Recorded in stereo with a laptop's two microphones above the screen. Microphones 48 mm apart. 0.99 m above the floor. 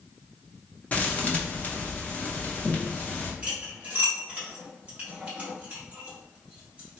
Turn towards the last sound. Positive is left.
turn(degrees=-30)  # may be behind; listen again after turning